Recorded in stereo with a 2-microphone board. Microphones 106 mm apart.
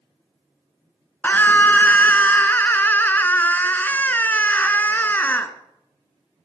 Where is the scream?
20° left (ahead or behind), 1.3 m.